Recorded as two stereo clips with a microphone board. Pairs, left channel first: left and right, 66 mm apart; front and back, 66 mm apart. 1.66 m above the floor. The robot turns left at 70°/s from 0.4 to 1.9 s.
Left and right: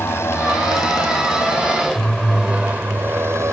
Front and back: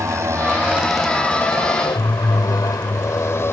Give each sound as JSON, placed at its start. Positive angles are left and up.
{"t": 0.0, "sound": "a motorcycle", "azimuth_deg": 140}